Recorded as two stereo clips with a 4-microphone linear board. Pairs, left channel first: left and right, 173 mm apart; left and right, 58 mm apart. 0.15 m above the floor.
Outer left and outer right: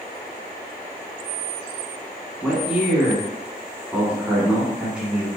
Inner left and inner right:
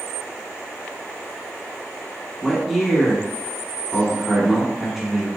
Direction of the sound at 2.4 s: 5° right (ahead or behind).